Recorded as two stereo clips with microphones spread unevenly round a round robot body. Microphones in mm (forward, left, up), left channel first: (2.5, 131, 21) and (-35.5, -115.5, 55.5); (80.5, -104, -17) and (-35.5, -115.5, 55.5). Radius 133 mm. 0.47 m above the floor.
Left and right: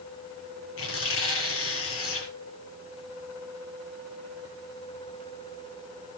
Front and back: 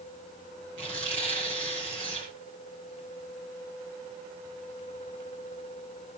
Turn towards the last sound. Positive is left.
turn(degrees=120)